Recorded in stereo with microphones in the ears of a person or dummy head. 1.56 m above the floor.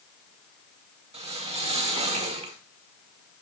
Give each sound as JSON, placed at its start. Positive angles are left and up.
{"t": 1.1, "sound": "a whoosh", "side_deg": -30, "distance_m": 1.1}